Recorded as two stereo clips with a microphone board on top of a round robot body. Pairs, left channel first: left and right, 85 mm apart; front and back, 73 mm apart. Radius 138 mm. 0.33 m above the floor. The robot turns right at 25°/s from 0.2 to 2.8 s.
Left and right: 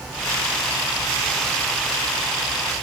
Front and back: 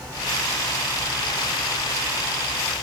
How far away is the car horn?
No car horn in this recording.